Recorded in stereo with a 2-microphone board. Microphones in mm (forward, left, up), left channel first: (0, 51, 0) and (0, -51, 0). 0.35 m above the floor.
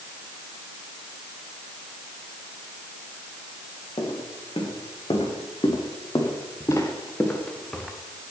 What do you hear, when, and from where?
4.0 s footsteps: 60° left (ahead or behind), 4 m; by 7.9 s 5° left (ahead or behind), 2 m